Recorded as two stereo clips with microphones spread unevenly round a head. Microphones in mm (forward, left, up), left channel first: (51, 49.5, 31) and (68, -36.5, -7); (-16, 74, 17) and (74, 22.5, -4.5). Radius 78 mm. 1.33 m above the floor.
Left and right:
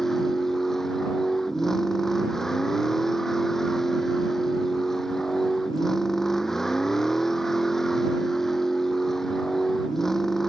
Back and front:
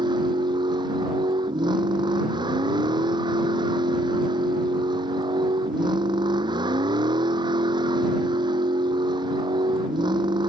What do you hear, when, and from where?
0.0 s a vehicle: 15° left